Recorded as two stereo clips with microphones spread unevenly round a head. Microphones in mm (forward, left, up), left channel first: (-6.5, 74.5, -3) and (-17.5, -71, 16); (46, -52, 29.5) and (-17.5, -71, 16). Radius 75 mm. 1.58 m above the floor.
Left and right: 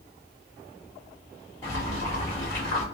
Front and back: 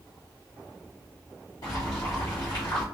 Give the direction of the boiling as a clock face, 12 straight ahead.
12 o'clock.